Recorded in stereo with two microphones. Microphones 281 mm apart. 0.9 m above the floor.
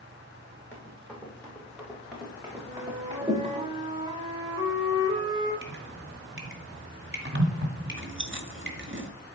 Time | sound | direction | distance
0.7 | running footsteps | 10° left (ahead or behind) | 6 m
2.6 | a flute | 20° right (ahead or behind) | 2.5 m
5.6 | dripping | 45° right (ahead or behind) | 2 m
7.9 | chewing | 45° right (ahead or behind) | 1.3 m